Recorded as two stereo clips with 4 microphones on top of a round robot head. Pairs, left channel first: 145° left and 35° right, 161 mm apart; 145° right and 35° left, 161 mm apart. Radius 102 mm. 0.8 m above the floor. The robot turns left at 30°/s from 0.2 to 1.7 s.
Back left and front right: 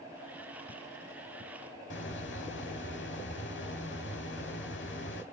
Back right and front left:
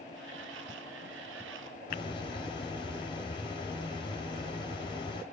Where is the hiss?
155° left, 2.5 m.